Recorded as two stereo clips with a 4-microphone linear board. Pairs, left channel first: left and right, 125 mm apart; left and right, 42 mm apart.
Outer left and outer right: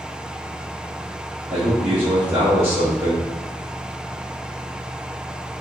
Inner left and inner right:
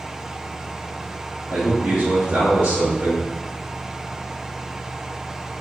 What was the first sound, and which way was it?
A man speaking, 40° right (ahead or behind).